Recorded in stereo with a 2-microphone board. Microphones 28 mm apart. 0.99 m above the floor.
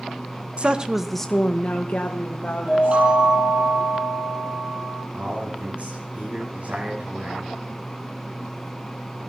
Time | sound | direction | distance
0.6 | a woman speaking | 40° right (ahead or behind) | 0.7 m
2.7 | a chime | 45° right (ahead or behind) | 5.5 m
5.1 | a man speaking | 55° right (ahead or behind) | 7.5 m